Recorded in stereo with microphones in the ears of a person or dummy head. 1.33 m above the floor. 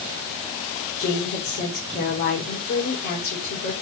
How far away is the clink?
I don't hear a clink.